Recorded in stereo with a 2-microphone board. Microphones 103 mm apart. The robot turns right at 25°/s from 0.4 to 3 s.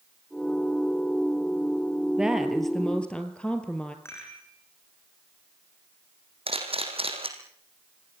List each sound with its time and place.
2.2 s a woman speaking: 10° right (ahead or behind), 2.5 m; by 4.0 s 10° left (ahead or behind), 2.5 m
4.0 s a rattle: 25° left (ahead or behind), 6.5 m
6.5 s a camera shutter: 65° right (ahead or behind), 4 m